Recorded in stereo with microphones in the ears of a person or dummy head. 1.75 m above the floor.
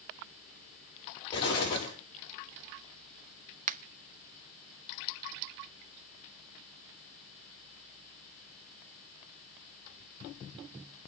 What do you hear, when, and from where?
1.3 s an explosion: 25° left (ahead or behind), 5.5 m
3.7 s a finger snap: 35° right (ahead or behind), 0.8 m